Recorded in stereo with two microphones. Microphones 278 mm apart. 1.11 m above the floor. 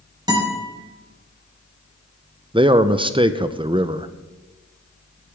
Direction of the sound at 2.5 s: 15° right (ahead or behind).